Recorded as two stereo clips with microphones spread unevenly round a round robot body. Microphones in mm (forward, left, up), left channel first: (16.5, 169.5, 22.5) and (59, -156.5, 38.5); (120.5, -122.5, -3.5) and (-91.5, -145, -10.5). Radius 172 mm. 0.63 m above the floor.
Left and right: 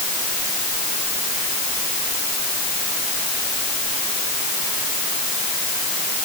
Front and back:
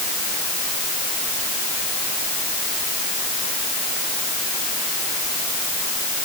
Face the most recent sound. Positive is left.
No sound to turn to.